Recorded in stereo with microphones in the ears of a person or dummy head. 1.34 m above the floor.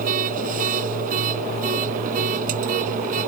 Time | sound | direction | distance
0.0 | a machine running | 50° right (ahead or behind) | ?